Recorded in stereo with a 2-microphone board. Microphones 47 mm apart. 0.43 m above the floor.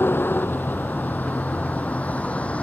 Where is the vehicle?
45° left (ahead or behind); by 2.6 s 25° left (ahead or behind).